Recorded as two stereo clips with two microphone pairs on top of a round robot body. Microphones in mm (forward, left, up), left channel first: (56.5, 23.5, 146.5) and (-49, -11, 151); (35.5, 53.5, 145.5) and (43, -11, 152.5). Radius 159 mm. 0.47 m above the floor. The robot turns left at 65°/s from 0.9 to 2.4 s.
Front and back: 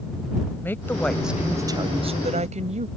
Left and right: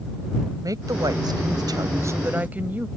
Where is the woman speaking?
55° right; by 2.9 s 150° right.